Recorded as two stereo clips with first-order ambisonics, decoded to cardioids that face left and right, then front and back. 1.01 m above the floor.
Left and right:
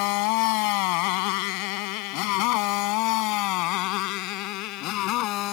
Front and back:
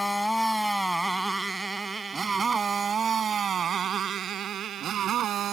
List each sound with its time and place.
0.0 s a motorcycle: 85° left; by 5.5 s 125° left